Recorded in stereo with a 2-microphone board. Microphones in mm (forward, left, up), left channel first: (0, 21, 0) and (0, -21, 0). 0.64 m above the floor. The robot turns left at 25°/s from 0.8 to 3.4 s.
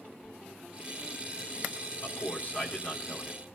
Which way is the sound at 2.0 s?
55° left.